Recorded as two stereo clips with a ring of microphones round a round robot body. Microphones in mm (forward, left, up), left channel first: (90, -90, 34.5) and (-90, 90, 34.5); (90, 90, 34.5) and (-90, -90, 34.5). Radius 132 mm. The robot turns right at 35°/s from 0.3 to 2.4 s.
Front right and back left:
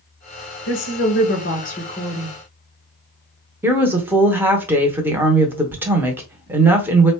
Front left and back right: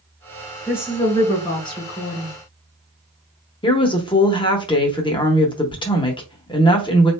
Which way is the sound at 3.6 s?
70° left.